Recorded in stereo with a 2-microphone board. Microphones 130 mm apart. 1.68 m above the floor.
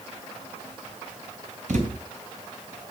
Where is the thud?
65° right (ahead or behind), 3 m.